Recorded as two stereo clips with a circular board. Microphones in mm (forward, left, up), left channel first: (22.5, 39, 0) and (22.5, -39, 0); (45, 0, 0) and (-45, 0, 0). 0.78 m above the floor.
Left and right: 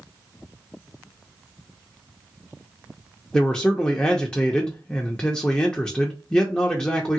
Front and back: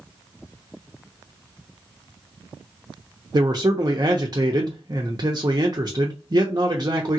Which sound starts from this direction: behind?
A man speaking, at 3.3 s.